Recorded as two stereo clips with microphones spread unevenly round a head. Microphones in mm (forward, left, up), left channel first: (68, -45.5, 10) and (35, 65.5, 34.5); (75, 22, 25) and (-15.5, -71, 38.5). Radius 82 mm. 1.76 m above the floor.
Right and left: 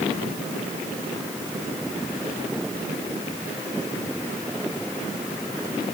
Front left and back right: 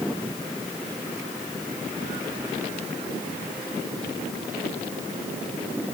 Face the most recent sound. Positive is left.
No sound to turn to.